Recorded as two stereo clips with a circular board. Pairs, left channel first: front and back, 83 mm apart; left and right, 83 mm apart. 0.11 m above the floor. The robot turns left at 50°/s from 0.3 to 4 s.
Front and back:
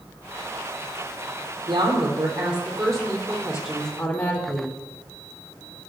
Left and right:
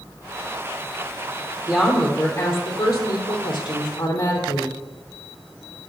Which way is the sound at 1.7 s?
170° right.